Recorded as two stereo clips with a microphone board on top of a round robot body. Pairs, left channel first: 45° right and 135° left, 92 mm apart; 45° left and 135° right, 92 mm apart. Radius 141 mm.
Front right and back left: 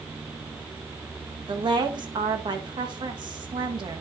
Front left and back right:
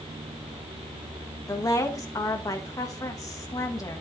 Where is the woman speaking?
100° left, 1.6 m.